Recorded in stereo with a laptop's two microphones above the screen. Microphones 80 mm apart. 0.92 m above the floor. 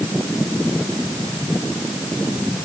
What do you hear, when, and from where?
Only background noise.